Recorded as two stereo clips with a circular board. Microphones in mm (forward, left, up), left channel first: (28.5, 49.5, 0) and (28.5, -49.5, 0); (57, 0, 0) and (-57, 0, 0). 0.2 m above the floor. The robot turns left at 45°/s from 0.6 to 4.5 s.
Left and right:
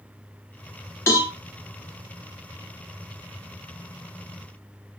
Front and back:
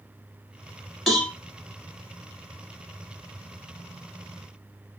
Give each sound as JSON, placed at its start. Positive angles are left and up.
{"t": 1.1, "sound": "a cowbell", "azimuth_deg": 90, "distance_m": 1.2}